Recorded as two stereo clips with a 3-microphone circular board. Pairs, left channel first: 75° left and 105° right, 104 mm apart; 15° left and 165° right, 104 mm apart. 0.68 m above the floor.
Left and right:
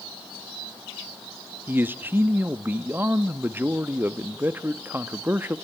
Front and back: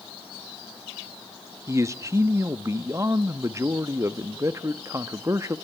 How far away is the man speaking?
About 0.6 m.